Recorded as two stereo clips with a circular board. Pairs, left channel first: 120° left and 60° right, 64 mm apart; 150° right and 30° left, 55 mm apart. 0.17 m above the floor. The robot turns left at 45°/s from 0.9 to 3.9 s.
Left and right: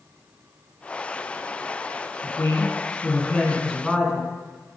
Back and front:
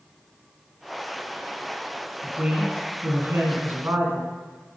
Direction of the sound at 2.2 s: 95° left.